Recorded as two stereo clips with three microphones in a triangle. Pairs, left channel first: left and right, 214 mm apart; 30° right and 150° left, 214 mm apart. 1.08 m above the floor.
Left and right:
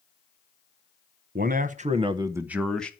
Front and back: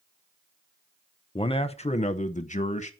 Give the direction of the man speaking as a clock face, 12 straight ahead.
3 o'clock.